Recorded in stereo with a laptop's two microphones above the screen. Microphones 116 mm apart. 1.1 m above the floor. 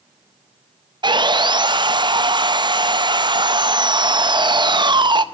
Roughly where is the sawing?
Right.